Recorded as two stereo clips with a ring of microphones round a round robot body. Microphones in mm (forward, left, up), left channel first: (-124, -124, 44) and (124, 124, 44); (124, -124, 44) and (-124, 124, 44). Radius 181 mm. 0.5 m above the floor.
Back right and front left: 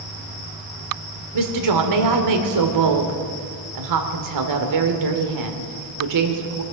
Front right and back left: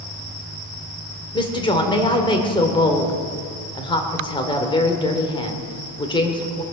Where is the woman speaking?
30° left, 1.9 m.